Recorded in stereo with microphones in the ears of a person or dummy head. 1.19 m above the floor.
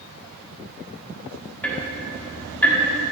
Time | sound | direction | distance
1.6 | ticking | 5° left (ahead or behind) | 1.2 m